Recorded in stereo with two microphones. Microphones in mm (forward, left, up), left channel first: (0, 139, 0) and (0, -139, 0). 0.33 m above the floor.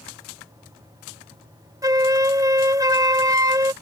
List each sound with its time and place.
1.8 s a flute: 15° right (ahead or behind)